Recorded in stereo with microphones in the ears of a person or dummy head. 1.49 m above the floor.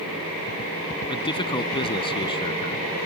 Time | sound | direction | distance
1.1 | a man speaking | 30° left (ahead or behind) | ?